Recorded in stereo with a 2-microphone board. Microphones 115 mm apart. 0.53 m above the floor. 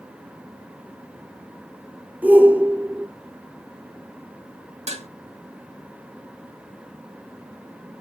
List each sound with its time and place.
2.2 s a shout: 15° right (ahead or behind), 0.8 m
4.9 s dishes clattering: 60° right (ahead or behind), 0.9 m